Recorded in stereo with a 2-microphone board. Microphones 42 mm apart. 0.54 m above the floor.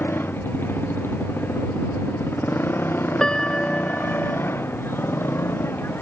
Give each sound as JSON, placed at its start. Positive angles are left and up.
{"t": 0.0, "sound": "a motorcycle", "side_deg": 60}
{"t": 3.2, "sound": "a piano", "side_deg": 15}